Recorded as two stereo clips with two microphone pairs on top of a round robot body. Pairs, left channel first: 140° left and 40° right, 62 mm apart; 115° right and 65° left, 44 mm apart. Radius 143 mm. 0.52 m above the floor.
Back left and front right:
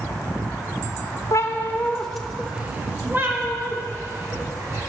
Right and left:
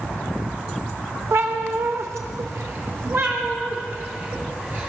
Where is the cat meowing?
100° left, 0.7 m; by 4.9 s 5° left, 2 m.